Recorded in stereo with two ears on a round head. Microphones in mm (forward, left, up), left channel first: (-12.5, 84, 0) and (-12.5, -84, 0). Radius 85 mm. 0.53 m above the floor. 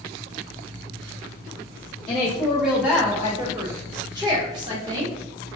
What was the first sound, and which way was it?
A woman speaking, centre (ahead or behind).